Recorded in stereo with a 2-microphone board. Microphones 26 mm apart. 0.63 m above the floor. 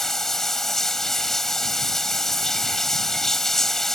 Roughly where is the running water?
Centre.